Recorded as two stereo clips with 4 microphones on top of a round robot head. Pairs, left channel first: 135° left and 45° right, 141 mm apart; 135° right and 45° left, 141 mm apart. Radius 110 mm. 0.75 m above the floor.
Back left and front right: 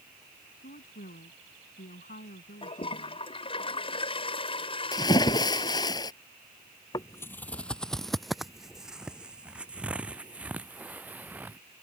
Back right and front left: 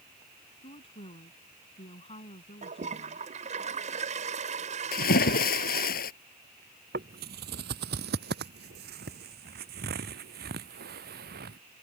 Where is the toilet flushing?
85° left.